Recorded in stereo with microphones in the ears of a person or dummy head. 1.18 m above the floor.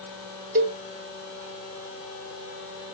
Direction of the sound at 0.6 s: 40° right (ahead or behind).